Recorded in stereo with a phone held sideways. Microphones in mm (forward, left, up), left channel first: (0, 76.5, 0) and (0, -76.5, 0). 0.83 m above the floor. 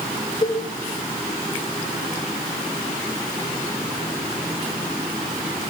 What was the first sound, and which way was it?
A cowbell, 60° left (ahead or behind).